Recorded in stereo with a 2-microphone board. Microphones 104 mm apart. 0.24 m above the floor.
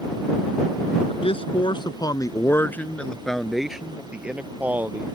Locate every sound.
1.1 s a man speaking: 65° left (ahead or behind); by 5.1 s 20° right (ahead or behind)